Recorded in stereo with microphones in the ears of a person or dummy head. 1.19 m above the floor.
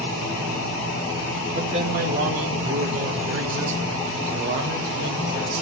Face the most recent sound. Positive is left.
turn(degrees=-85)